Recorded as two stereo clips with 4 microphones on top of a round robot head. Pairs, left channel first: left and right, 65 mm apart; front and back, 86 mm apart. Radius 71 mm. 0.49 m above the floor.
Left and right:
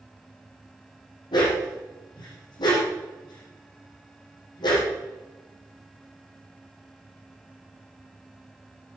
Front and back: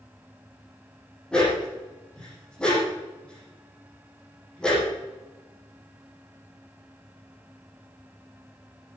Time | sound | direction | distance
1.3 | a dog barking | 80° left | 6 m